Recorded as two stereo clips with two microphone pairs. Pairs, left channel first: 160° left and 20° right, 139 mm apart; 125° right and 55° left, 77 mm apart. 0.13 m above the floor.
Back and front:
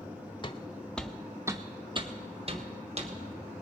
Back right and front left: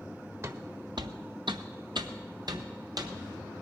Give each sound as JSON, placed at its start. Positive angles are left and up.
{"t": 0.4, "sound": "footsteps", "azimuth_deg": 110, "distance_m": 1.0}